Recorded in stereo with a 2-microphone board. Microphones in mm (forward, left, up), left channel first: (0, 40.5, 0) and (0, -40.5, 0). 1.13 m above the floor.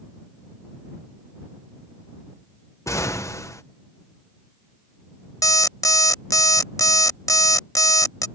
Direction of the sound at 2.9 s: 40° left (ahead or behind).